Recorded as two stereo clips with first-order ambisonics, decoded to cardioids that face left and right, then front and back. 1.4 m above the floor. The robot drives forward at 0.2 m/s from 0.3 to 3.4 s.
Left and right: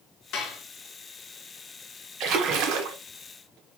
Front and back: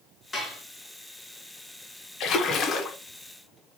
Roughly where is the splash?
Ahead right.